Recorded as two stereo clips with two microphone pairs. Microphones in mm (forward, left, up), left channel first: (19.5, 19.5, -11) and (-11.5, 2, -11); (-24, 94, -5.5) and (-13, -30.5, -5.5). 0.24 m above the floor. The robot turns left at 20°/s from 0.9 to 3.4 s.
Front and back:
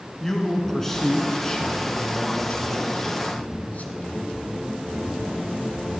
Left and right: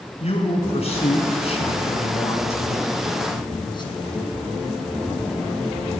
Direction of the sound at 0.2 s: 105° left.